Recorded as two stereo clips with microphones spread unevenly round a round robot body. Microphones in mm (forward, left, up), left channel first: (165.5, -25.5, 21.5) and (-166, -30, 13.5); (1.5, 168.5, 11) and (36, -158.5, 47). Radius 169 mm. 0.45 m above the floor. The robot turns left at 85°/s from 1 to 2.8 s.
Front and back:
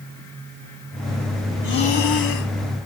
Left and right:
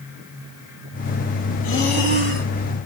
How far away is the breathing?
About 3 m.